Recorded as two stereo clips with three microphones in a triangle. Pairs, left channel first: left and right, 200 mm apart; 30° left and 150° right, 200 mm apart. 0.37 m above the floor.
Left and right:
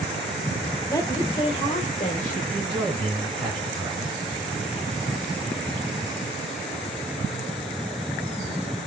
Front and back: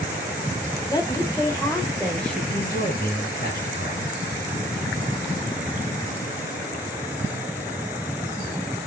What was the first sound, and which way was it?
A woman speaking, 50° left.